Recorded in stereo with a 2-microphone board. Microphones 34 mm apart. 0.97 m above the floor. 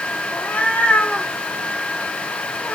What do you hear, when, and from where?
0.3 s a cat meowing: 50° left (ahead or behind), 1.0 m